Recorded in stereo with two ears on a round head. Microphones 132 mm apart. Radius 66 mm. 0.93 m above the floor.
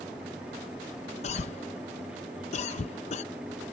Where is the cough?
50° left (ahead or behind).